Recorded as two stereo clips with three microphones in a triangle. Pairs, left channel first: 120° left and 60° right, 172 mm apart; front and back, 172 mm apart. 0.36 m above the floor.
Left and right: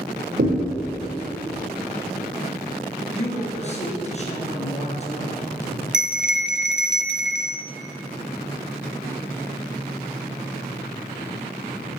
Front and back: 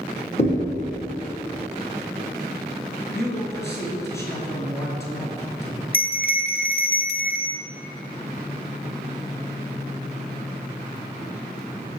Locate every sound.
0.4 s a thud: 50° right, 5 m
3.1 s a man speaking: 75° left, 4 m
5.9 s a bell: 25° left, 1.0 m